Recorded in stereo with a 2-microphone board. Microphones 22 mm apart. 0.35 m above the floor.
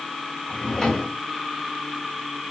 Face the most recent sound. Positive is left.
turn(degrees=25)  # may be behind; listen again after turning